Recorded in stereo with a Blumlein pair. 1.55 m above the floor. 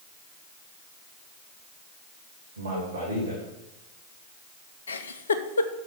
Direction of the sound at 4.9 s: 70° left.